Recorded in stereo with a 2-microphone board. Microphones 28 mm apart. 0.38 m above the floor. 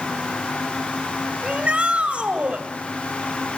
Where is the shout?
50° right (ahead or behind), 1.7 m.